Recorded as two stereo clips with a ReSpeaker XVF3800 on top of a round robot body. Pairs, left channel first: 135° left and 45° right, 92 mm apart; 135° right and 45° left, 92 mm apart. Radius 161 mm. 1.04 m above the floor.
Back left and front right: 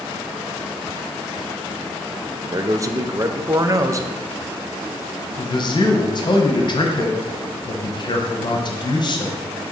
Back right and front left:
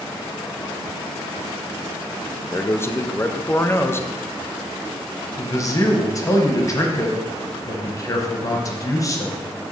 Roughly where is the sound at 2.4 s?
Right.